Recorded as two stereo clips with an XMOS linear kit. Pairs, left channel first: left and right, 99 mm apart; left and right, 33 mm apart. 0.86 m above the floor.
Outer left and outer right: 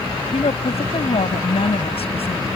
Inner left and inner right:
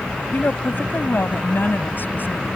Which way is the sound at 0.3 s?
80° left.